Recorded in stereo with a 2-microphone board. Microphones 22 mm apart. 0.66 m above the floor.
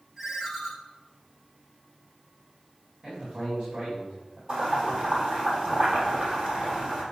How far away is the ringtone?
About 1.9 m.